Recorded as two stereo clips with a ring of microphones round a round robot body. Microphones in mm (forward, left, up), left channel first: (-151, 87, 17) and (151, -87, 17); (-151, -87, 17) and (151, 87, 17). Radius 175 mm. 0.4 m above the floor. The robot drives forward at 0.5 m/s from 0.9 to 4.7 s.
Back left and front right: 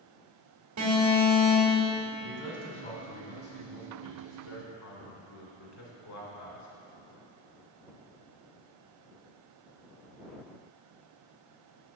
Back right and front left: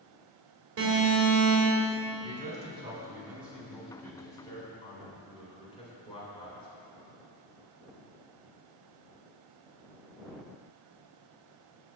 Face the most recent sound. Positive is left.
turn(degrees=140)